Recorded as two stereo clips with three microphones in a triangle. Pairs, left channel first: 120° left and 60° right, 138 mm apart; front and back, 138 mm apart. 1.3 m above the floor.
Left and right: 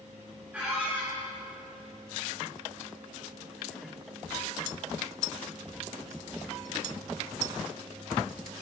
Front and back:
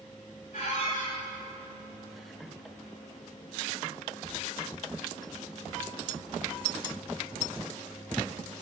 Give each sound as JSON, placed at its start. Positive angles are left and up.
{"t": 0.5, "sound": "a squeak", "azimuth_deg": 20, "distance_m": 3.0}